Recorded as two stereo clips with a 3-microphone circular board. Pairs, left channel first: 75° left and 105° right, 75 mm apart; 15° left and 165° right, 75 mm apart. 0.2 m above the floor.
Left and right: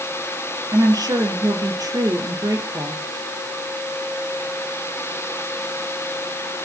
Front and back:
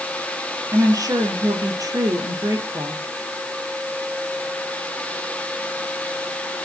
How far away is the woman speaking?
About 3.5 m.